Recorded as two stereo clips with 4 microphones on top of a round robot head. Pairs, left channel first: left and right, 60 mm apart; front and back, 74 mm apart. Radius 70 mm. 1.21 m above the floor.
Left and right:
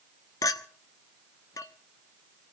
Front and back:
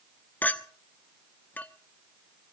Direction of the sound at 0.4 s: 70° left.